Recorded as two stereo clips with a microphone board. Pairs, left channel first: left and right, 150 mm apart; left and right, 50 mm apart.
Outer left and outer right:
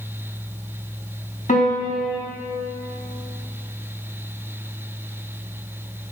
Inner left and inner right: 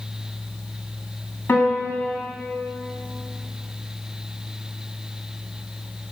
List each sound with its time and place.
1.5 s a piano: 55° left (ahead or behind), 2.5 m